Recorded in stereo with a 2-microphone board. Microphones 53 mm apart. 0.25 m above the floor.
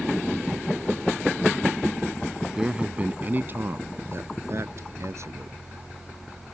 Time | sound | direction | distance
2.4 | a man speaking | 5° right (ahead or behind) | ?